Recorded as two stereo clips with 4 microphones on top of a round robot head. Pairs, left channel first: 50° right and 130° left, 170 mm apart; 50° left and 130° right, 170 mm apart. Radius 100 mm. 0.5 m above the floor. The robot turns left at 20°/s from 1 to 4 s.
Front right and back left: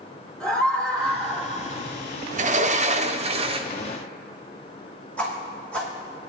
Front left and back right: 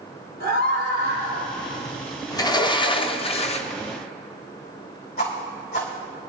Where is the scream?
35° left, 3 m; by 1.5 s 25° left, 3 m.